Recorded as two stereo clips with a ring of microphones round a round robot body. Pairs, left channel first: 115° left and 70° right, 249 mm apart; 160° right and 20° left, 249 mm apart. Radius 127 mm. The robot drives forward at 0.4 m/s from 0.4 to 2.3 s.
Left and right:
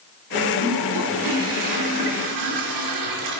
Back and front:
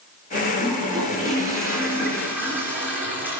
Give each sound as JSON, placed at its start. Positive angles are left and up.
{"t": 0.6, "sound": "a toilet flushing", "azimuth_deg": -55, "distance_m": 4.0}